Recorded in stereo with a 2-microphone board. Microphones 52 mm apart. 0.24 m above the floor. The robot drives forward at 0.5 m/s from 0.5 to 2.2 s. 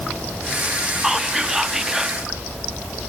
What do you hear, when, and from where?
1.0 s whispering: 5° right (ahead or behind), 1.9 m